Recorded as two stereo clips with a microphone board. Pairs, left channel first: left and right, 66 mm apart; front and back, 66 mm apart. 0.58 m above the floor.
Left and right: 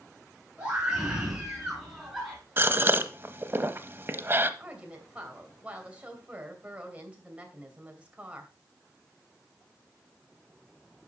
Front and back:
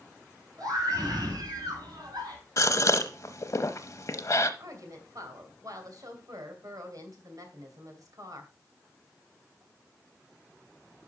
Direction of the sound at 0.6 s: 165° right.